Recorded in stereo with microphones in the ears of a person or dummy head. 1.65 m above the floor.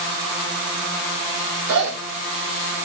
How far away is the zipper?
About 8 m.